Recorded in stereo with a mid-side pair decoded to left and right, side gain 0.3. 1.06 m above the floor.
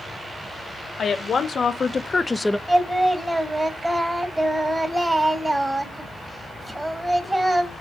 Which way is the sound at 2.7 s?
25° right.